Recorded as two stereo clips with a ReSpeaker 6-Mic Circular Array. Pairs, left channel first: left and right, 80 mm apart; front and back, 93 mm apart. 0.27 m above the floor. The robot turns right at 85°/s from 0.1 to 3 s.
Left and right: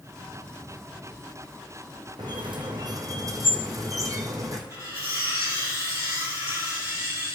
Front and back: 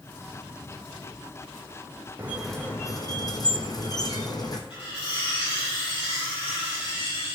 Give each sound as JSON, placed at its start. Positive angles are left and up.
{"t": 2.2, "sound": "a squeak", "azimuth_deg": -115, "distance_m": 1.4}
{"t": 4.7, "sound": "cutlery clinking", "azimuth_deg": -35, "distance_m": 4.5}